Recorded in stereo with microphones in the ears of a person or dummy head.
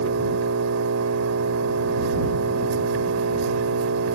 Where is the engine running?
80° right.